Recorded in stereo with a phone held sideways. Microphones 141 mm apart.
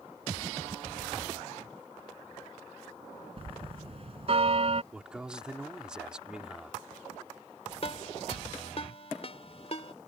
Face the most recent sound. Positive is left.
turn(degrees=50)  # may be behind; listen again after turning